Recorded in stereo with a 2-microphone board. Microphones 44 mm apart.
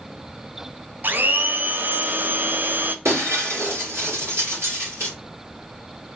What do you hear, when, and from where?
1.0 s a blender: 50° right (ahead or behind), 0.5 m
3.0 s breaking glass: 80° right, 3 m